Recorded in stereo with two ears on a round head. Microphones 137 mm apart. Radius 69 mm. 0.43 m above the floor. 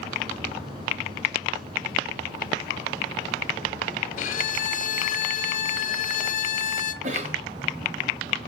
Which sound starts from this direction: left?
A violin, at 4.2 s.